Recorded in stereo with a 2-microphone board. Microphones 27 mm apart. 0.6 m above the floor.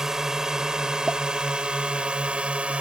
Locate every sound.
0.0 s a drone: 20° right (ahead or behind); by 2.8 s 45° right (ahead or behind)
1.1 s a pop: 60° right (ahead or behind)